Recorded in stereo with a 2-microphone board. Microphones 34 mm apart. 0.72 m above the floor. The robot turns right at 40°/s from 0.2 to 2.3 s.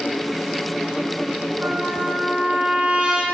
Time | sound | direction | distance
1.6 | a trumpet | 55° right (ahead or behind) | 1.2 m